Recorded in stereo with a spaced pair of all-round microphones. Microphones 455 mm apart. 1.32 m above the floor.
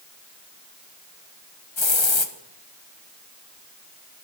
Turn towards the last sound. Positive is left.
turn(degrees=75)  # may be behind; listen again after turning